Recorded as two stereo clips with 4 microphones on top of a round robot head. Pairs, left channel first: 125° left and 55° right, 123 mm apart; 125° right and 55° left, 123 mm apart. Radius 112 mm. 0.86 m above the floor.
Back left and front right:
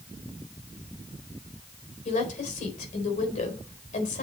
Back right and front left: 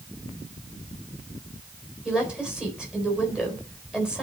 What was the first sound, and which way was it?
A woman speaking, 140° left.